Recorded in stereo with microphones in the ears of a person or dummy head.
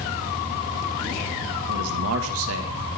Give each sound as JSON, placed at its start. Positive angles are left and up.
{"t": 1.7, "sound": "a man speaking", "side_deg": -80, "distance_m": 2.0}